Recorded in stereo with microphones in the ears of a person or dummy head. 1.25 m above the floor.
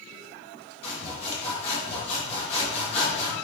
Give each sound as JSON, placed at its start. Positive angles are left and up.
{"t": 0.8, "sound": "sawing", "side_deg": 40, "distance_m": 1.7}